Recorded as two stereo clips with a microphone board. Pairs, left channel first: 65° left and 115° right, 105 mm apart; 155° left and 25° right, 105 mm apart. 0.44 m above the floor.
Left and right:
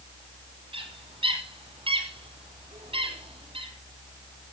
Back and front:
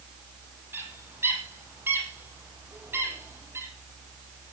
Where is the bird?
90° right, 3.5 m.